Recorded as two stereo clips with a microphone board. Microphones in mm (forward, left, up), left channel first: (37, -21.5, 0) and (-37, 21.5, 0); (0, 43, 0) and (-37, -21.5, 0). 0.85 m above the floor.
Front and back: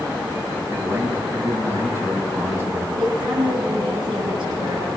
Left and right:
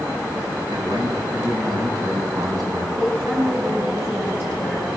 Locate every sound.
0.7 s a man speaking: 150° right, 7.5 m
3.0 s a woman speaking: straight behind, 8 m